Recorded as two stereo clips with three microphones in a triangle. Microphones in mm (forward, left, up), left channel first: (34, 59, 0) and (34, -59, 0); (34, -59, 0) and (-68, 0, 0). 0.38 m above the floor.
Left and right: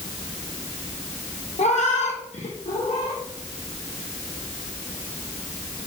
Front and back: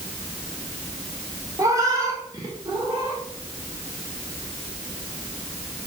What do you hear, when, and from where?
1.6 s a cat meowing: 90° left, 1.2 m; by 3.2 s 95° left, 2.5 m